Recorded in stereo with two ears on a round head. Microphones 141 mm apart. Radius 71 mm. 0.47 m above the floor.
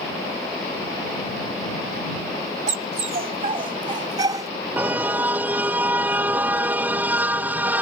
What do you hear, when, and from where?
2.7 s a dog barking: 50° right (ahead or behind); by 4.5 s 20° right (ahead or behind)
4.8 s a car horn: 10° right (ahead or behind)